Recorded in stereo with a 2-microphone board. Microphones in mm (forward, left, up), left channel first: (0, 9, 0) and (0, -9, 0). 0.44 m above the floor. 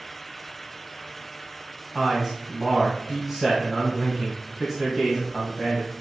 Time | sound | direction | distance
1.9 | a man speaking | 5° right (ahead or behind) | 2.5 m